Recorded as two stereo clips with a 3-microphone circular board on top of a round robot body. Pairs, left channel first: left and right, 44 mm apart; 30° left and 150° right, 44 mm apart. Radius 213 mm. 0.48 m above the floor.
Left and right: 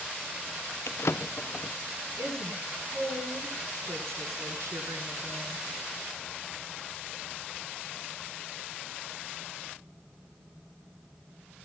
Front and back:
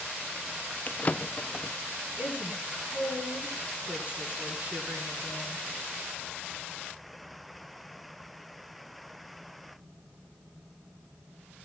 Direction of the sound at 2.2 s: 90° right.